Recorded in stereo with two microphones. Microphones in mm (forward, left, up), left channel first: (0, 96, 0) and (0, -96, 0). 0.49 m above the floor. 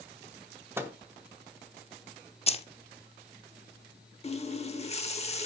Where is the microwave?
15° right (ahead or behind), 0.8 m.